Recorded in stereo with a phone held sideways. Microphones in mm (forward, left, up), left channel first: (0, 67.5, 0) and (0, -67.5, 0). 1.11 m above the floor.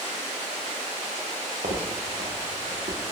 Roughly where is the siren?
I don't hear a siren.